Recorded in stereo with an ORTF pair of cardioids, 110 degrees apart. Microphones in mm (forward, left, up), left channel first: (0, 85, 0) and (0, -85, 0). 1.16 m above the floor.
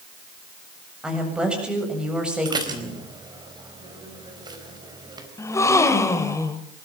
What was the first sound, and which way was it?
A woman speaking, 5° right.